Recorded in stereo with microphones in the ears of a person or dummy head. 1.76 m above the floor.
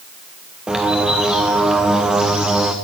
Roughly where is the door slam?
I don't hear a door slam.